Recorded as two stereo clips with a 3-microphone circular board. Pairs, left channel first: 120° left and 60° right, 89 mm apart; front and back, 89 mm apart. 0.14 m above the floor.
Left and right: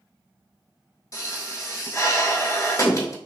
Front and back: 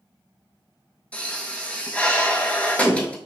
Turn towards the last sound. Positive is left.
turn(degrees=70)